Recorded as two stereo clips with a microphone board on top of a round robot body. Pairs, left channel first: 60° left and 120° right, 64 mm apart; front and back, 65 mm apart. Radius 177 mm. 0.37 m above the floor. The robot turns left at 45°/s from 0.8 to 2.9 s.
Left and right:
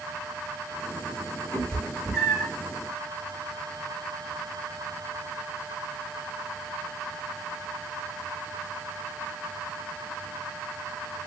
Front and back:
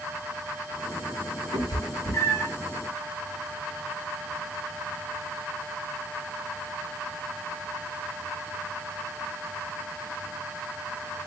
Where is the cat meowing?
15° right, 1.9 m; by 2.5 s 60° right, 1.9 m.